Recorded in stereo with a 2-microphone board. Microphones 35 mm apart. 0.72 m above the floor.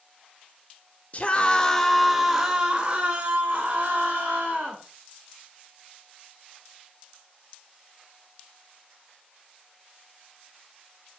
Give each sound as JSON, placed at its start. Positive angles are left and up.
{"t": 1.1, "sound": "a scream", "side_deg": 40, "distance_m": 0.8}